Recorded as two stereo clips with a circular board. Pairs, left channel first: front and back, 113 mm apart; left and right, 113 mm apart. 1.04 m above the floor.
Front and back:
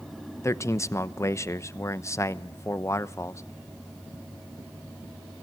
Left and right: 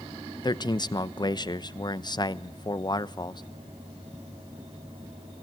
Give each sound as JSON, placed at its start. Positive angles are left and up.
{"t": 0.4, "sound": "a man speaking", "azimuth_deg": 55, "distance_m": 0.9}